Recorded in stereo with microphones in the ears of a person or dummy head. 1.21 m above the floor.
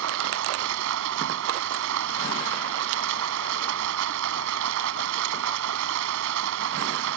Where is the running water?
75° right (ahead or behind).